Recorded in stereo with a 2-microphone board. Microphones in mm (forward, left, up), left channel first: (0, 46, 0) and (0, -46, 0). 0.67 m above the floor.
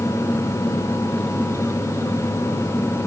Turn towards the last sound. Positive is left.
No sound to turn to.